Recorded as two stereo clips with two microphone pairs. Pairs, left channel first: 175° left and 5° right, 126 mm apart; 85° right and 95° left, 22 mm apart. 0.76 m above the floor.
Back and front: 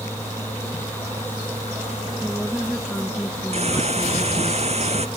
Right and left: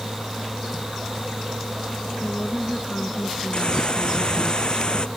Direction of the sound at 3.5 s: 35° right.